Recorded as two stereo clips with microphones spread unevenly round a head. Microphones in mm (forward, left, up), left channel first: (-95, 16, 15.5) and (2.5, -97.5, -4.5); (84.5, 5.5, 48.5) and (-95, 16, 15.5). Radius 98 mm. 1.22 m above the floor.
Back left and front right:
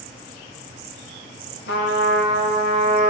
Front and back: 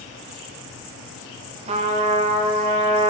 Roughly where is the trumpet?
Behind left.